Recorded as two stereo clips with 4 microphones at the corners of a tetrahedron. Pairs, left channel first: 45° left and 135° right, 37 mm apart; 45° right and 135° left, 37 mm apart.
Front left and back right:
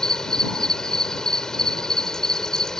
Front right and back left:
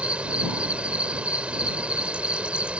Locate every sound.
0.0 s an insect: 105° left